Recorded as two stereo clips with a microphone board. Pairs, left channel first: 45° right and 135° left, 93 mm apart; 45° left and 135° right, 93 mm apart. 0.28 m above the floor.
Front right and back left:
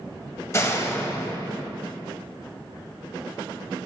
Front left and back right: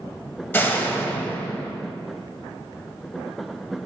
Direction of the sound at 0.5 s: 10° right.